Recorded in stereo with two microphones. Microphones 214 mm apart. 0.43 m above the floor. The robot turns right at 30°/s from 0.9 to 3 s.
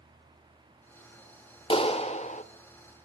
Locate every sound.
1.7 s a clap: 25° left (ahead or behind), 1.0 m; by 2.4 s 35° left (ahead or behind), 1.0 m